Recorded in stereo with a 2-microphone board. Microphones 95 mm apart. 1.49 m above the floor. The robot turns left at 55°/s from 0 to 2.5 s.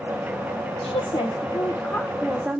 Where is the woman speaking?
80° left, 1.2 m; by 2.6 s 15° right, 1.2 m.